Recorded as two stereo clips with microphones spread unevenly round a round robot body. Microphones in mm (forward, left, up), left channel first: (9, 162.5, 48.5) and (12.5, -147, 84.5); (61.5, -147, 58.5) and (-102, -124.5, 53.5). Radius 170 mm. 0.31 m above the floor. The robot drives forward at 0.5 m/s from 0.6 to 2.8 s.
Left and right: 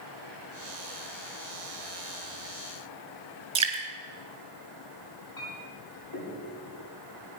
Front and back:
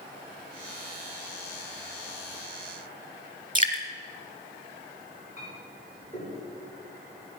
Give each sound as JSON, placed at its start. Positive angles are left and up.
{"t": 3.5, "sound": "dripping", "azimuth_deg": -165, "distance_m": 3.0}
{"t": 5.4, "sound": "a clink", "azimuth_deg": 90, "distance_m": 6.5}